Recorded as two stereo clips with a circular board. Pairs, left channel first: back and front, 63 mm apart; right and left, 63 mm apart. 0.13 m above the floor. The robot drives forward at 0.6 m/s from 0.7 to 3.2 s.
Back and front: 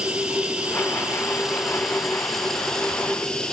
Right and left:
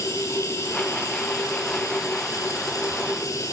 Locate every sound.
0.0 s running water: 70° right, 3 m; by 3.5 s 105° right, 2.5 m